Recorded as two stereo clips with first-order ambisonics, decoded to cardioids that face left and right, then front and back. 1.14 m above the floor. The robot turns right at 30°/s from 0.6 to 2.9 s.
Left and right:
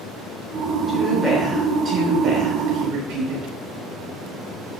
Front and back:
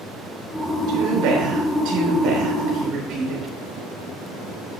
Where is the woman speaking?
175° left, 4 m; by 3.5 s 125° right, 4 m.